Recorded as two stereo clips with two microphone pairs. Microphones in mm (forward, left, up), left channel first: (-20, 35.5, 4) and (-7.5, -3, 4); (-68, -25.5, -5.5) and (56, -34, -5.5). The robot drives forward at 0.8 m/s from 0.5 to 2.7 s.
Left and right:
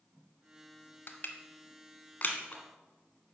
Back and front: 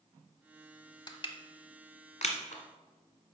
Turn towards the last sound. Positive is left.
turn(degrees=160)